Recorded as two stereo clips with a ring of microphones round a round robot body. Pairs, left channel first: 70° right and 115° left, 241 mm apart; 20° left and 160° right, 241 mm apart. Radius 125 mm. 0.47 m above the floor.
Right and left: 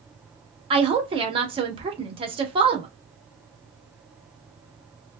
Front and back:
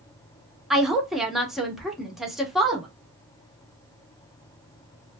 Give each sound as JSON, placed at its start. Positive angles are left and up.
{"t": 0.7, "sound": "a woman speaking", "azimuth_deg": 115, "distance_m": 0.8}